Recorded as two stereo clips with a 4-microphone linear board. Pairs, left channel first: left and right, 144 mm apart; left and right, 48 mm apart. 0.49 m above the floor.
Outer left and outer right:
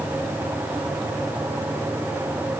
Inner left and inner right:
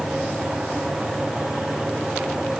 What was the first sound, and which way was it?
Only background noise.